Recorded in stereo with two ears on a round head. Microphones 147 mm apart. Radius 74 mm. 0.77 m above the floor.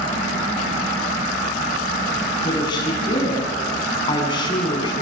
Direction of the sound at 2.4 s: 25° left (ahead or behind).